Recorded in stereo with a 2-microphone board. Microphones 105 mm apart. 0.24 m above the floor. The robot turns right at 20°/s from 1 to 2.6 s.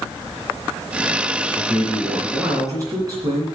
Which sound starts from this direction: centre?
A man speaking, at 1.6 s.